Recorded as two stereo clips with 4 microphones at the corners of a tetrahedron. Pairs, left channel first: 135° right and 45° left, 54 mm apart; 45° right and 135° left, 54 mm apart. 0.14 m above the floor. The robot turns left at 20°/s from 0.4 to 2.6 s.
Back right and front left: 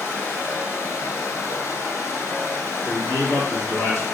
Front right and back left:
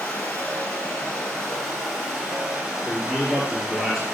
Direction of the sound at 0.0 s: 105° right.